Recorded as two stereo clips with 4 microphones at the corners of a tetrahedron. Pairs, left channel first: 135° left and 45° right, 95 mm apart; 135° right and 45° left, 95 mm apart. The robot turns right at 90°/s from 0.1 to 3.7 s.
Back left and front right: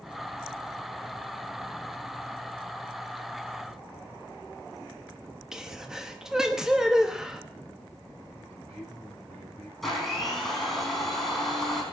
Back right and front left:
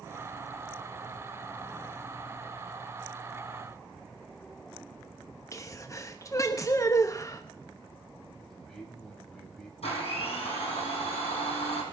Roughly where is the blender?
Behind right.